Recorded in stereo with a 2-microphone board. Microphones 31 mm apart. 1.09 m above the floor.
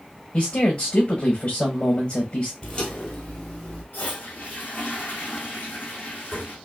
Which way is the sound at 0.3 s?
50° left (ahead or behind).